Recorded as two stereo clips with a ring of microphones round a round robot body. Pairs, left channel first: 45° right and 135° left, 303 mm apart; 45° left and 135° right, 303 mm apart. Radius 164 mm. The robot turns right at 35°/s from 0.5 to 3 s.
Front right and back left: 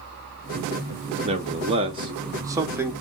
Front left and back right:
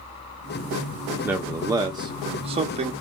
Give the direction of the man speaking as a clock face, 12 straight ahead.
7 o'clock.